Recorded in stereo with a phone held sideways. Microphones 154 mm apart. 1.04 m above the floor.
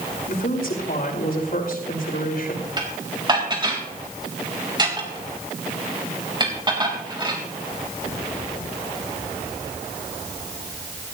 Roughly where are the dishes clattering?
Right.